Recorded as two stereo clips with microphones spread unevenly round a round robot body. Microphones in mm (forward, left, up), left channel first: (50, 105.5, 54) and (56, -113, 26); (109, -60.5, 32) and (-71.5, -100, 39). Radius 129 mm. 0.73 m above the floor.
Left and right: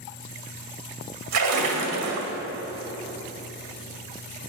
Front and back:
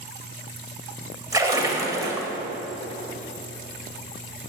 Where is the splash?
95° right, 1.9 m.